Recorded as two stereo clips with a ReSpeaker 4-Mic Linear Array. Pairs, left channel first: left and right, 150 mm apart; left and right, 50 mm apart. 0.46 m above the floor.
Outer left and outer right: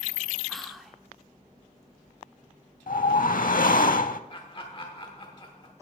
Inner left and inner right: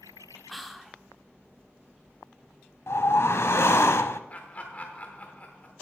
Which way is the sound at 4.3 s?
35° left (ahead or behind).